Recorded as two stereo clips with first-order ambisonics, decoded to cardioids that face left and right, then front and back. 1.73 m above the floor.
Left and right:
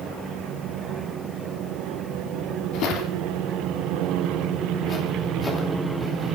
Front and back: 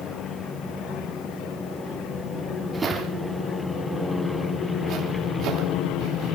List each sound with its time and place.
2.7 s footsteps: 105° left, 3 m; by 6.3 s 175° left, 3 m